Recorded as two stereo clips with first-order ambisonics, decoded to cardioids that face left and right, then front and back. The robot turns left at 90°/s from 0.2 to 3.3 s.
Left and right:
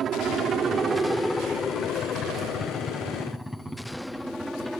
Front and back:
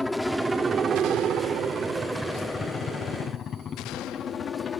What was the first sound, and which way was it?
A helicopter, 80° right.